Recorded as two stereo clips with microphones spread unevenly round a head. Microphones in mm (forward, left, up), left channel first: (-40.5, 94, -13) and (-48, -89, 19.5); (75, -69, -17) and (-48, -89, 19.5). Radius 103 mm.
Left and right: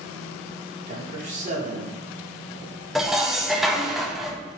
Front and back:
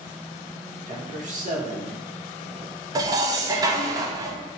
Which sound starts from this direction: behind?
Dishes clattering, at 3.0 s.